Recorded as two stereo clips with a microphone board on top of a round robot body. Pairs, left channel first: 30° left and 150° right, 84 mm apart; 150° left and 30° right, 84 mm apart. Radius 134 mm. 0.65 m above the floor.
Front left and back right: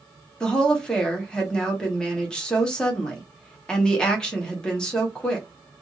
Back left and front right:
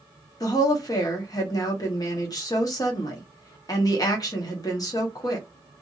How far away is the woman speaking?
About 1.4 m.